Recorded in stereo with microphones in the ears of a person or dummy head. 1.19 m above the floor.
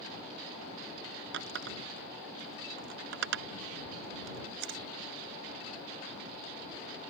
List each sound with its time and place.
1.3 s a running tap: 75° right (ahead or behind)